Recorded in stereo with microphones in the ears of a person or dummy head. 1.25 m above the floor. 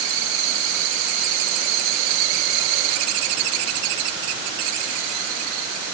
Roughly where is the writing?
I don't hear writing.